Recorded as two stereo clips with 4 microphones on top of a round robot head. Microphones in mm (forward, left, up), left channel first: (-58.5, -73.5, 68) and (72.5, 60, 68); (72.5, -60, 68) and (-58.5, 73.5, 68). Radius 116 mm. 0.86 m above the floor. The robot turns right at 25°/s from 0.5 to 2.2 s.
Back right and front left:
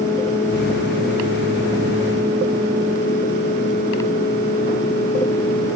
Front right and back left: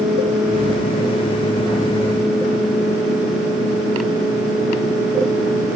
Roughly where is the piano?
No piano in this recording.